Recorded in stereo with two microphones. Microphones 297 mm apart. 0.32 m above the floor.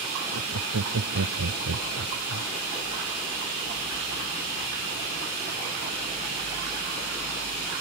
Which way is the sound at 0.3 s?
70° right (ahead or behind).